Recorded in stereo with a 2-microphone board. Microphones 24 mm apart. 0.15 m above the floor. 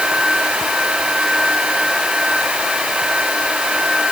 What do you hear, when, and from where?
Only background noise.